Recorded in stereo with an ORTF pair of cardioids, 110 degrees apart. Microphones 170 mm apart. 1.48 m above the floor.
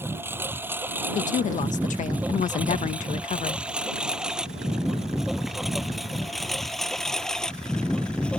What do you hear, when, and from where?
0.0 s a lawn mower: 15° right; by 8.4 s 5° left
1.1 s a woman speaking: 40° left